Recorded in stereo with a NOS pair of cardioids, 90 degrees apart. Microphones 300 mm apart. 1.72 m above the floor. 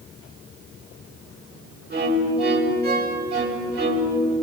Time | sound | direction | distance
1.9 | a violin | 35° right | 7.5 m